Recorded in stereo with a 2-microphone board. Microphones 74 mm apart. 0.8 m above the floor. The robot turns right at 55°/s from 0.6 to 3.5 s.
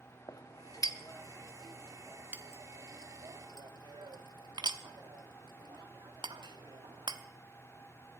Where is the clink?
60° left (ahead or behind), 0.9 m; by 7.2 s 80° right, 0.9 m.